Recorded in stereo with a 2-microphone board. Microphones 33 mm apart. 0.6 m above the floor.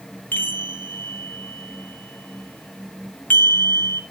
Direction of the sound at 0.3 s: 75° left (ahead or behind).